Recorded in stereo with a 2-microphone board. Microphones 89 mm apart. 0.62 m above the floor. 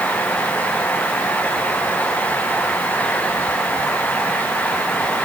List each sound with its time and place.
Only background noise.